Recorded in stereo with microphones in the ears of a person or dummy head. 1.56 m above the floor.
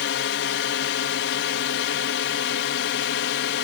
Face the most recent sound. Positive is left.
turn(degrees=65)  # may be behind; listen again after turning